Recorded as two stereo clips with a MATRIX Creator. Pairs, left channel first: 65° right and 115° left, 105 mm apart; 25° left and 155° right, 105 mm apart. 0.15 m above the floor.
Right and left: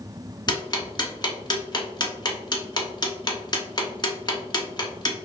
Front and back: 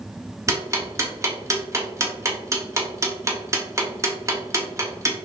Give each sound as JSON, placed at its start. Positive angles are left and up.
{"t": 0.5, "sound": "ticking", "azimuth_deg": -105, "distance_m": 1.0}